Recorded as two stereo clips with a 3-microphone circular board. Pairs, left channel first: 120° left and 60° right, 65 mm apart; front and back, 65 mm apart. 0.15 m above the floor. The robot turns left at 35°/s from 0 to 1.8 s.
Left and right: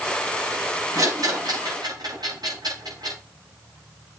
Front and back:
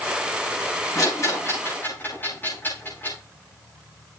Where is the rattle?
30° right, 9.5 m; by 3.2 s 60° right, 9.5 m.